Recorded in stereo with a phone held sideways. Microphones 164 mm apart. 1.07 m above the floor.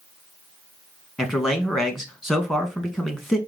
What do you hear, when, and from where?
1.2 s a man speaking: centre (ahead or behind), 1.0 m